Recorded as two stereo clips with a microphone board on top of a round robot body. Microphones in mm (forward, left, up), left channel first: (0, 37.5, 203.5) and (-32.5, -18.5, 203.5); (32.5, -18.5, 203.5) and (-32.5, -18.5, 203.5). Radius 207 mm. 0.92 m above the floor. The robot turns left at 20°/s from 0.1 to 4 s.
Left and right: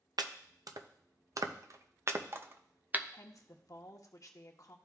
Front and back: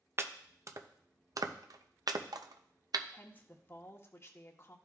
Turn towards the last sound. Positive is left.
turn(degrees=45)